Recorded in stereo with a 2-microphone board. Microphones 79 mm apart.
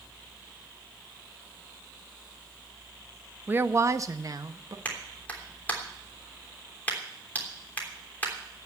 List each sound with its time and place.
3.5 s a woman speaking: 25° right (ahead or behind), 0.6 m; by 4.8 s 55° right (ahead or behind), 1.3 m
4.8 s a clap: 25° left (ahead or behind), 3 m